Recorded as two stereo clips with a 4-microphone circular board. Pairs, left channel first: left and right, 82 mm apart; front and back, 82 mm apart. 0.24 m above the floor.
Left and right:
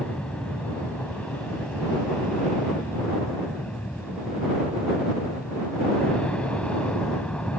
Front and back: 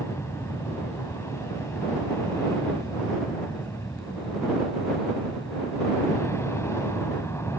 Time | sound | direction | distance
0.0 | an aircraft | 25° left | ?